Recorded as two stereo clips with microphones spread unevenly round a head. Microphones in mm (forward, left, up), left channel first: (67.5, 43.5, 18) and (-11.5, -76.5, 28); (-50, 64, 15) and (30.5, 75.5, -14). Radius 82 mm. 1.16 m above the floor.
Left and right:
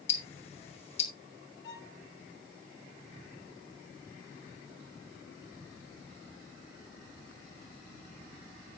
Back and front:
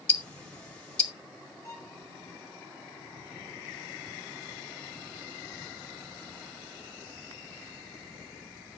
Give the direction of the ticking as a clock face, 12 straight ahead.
8 o'clock.